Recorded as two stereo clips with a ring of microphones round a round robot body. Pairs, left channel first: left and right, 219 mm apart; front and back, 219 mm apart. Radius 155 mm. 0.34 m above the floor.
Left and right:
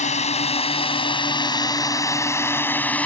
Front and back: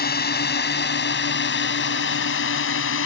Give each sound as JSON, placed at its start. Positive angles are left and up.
{"t": 0.0, "sound": "a drone", "azimuth_deg": 35}